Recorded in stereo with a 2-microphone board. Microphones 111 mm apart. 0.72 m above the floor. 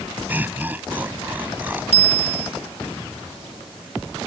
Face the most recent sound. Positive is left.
turn(degrees=65)  # may be behind; listen again after turning